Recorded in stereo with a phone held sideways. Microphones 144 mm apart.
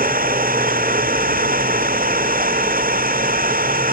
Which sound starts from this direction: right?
An engine running, at 0.0 s.